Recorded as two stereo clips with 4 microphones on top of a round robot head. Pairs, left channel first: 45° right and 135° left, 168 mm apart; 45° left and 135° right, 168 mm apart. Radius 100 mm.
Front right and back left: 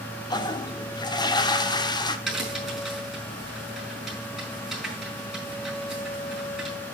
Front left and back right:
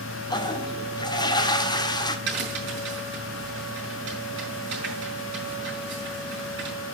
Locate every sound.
0.3 s a toilet flushing: straight ahead, 1.4 m
2.3 s a crack: 135° right, 7.5 m